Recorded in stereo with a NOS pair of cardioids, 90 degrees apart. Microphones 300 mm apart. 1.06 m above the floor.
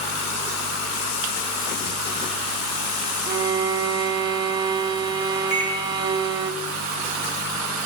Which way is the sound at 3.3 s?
15° right.